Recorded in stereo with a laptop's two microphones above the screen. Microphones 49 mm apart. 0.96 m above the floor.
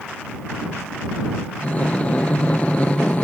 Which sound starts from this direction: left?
Breathing, at 1.6 s.